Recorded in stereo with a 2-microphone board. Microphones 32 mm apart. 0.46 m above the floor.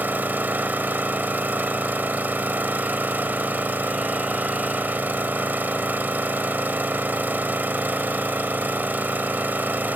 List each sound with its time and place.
0.0 s an engine running: 75° right (ahead or behind), 0.7 m